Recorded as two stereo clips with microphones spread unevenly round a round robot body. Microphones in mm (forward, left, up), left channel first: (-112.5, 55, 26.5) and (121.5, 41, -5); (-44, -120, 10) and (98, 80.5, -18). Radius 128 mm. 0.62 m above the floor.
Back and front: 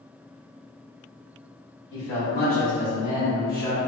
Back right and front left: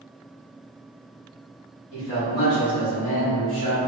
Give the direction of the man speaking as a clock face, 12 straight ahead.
5 o'clock.